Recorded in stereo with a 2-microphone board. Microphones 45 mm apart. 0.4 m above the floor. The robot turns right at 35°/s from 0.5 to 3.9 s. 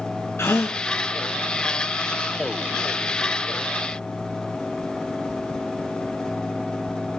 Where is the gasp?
65° left (ahead or behind), 3 m; by 0.8 s 75° left (ahead or behind), 3 m.